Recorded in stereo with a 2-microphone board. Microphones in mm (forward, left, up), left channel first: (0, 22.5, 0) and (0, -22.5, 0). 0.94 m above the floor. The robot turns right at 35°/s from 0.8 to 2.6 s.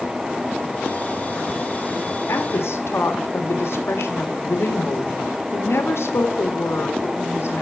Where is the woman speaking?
75° left (ahead or behind), 1.7 m; by 7.6 s 70° left (ahead or behind), 1.7 m.